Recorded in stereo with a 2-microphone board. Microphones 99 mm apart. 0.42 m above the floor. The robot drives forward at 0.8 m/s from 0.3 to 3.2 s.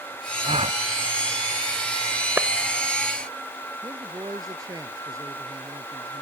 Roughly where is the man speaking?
Right.